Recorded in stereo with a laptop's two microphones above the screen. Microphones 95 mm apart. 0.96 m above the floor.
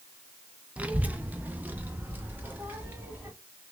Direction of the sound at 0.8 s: 15° right (ahead or behind).